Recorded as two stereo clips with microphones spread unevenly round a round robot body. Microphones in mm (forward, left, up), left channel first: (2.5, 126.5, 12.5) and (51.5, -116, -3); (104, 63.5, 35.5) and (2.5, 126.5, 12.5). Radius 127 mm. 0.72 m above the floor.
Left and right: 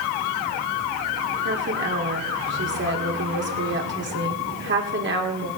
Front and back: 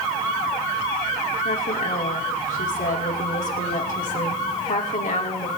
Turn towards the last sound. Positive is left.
turn(degrees=-40)